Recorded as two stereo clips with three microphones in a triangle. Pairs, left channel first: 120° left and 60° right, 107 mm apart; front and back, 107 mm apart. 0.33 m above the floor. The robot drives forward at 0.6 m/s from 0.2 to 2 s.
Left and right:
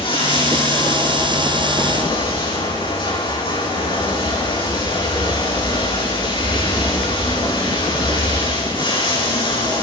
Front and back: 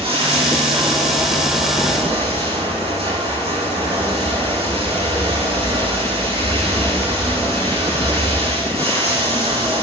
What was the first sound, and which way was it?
Running water, 155° left.